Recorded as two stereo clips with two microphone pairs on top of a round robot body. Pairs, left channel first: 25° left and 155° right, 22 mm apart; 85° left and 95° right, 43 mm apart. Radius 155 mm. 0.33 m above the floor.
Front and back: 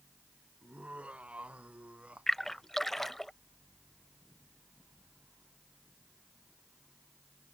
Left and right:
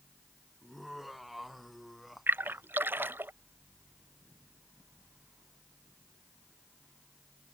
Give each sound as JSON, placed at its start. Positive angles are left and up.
{"t": 0.6, "sound": "laughter", "azimuth_deg": 175}
{"t": 2.3, "sound": "a splash", "azimuth_deg": -55}